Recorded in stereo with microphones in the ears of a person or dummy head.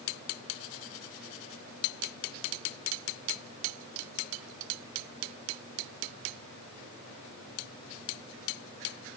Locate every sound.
Only background noise.